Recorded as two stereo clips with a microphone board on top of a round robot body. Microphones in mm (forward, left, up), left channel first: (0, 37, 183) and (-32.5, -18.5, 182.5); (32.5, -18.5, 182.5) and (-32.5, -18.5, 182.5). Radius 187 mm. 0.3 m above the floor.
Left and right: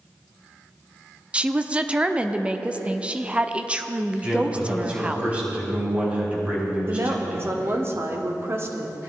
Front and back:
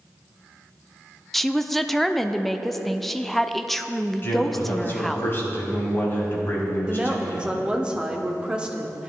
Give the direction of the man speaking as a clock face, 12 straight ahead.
2 o'clock.